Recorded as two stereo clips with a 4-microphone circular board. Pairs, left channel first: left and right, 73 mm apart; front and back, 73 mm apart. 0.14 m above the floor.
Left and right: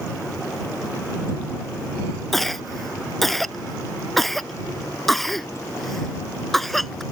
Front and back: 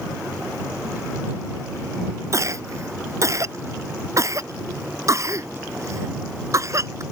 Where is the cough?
175° left.